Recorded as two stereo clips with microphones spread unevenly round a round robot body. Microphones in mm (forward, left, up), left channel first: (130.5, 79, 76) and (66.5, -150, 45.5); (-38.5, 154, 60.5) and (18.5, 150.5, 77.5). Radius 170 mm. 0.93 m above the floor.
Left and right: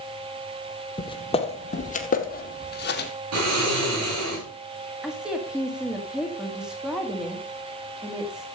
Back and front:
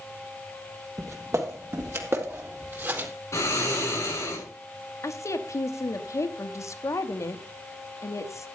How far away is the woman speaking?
About 1.5 m.